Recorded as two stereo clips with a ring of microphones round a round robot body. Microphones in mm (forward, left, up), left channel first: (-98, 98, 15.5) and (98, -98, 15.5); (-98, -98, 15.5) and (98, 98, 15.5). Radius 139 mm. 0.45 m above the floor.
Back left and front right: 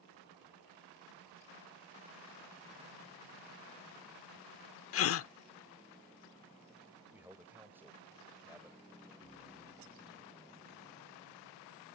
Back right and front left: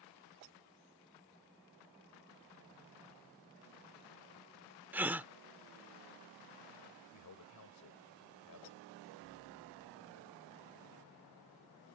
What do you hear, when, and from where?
4.9 s a gasp: 125° left
7.1 s a man speaking: 125° right